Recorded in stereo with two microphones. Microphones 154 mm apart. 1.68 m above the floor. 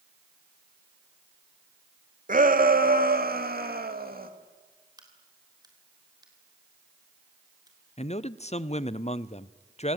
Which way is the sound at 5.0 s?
25° right (ahead or behind).